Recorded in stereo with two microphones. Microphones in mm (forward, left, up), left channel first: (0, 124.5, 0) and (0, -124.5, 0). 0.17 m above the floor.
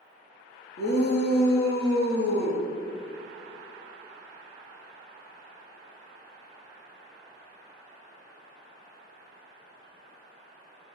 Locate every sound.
0.8 s a shout: 45° left (ahead or behind), 2.5 m